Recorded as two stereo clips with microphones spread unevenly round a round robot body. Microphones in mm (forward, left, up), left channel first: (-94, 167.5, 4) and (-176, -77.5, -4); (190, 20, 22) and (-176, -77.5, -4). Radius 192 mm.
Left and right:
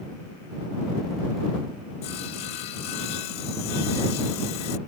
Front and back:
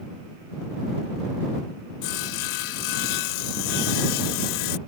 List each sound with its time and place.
2.0 s sawing: 25° left